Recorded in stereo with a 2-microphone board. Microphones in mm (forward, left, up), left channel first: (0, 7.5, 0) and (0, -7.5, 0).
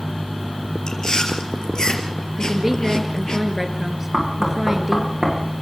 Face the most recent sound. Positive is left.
turn(degrees=-30)  # may be behind; listen again after turning